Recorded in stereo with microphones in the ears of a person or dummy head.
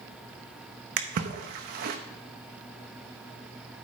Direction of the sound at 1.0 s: 50° right (ahead or behind).